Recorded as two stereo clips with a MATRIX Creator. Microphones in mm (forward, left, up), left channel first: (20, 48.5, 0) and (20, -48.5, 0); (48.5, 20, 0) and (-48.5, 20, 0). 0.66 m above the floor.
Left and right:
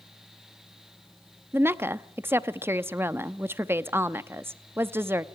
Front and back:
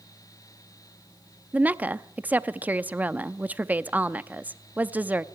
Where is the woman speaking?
125° right, 0.7 m.